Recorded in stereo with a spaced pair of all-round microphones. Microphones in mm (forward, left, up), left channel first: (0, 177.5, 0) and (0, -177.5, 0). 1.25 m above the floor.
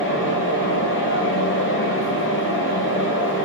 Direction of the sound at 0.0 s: 35° left (ahead or behind).